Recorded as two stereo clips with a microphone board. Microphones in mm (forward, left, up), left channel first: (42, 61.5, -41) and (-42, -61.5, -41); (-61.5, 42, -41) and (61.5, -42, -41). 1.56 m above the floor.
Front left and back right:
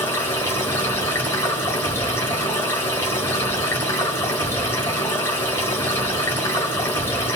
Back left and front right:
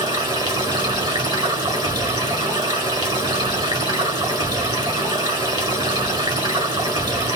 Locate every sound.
0.0 s running water: 5° right, 1.6 m